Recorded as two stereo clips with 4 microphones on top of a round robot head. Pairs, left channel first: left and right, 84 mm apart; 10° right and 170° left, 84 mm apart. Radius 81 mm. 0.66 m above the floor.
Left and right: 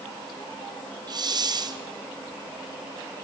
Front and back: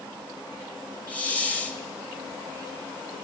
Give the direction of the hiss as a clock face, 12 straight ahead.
3 o'clock.